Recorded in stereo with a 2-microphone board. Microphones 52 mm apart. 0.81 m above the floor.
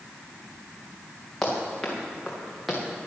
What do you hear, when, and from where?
1.4 s running footsteps: 10° left (ahead or behind), 5 m; by 2.8 s centre (ahead or behind), 4 m